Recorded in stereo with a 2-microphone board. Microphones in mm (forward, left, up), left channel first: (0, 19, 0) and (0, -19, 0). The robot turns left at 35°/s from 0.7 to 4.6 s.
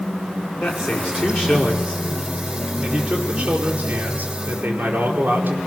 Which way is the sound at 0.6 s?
65° left.